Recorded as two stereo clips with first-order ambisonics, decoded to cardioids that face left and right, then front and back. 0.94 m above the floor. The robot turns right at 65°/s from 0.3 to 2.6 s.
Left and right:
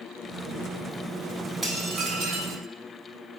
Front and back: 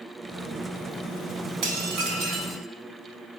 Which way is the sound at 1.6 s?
Straight behind.